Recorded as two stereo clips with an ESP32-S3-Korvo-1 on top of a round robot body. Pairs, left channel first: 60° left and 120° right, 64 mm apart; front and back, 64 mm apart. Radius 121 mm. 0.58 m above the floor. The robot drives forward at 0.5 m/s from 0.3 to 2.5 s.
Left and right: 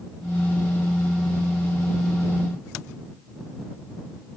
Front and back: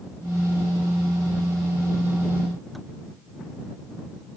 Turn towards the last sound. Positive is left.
No sound to turn to.